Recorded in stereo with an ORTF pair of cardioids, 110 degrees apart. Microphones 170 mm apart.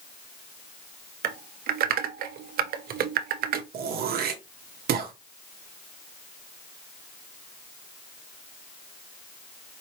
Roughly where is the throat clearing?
Ahead right.